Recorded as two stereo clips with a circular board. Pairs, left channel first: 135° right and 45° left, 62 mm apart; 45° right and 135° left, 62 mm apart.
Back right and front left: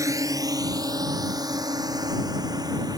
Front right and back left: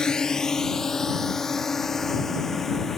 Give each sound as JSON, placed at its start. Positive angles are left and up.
{"t": 0.0, "sound": "a drone", "azimuth_deg": 30}